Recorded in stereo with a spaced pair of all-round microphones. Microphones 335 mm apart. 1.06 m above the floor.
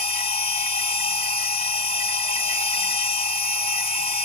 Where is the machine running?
20° left (ahead or behind), 0.7 m.